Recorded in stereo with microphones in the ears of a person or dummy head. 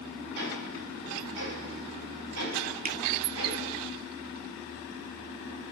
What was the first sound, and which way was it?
Ticking, 65° right (ahead or behind).